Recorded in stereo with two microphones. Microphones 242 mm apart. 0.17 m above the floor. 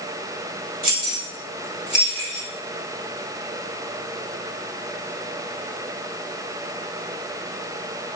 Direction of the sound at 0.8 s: 35° right (ahead or behind).